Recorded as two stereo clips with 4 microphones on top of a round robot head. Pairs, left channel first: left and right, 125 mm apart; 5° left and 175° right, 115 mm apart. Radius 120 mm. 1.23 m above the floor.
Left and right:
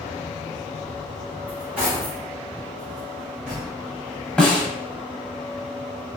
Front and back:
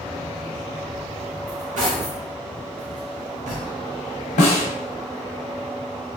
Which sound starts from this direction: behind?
Cutlery clinking, at 1.5 s.